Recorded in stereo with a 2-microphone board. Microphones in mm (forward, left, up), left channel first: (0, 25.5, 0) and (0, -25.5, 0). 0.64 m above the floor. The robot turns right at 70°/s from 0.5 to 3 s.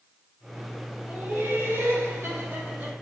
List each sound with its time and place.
1.1 s laughter: 150° right, 4 m; by 2.9 s 20° right, 4 m